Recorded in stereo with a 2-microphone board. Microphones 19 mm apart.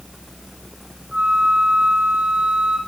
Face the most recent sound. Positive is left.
turn(degrees=-80)